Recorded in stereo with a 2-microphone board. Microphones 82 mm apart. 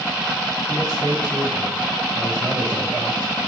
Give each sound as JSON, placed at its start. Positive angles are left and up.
{"t": 0.7, "sound": "a man speaking", "side_deg": -50, "distance_m": 5.0}